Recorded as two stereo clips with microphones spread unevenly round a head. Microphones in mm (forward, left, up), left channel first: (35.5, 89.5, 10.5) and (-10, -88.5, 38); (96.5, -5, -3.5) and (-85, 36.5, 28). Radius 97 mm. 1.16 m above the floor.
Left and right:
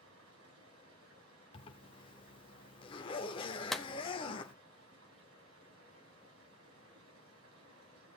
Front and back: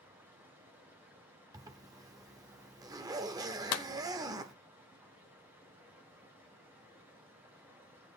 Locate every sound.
0.0 s running water: 115° right, 2.5 m
1.5 s a zipper: 135° left, 0.9 m
3.7 s a clap: 15° right, 0.6 m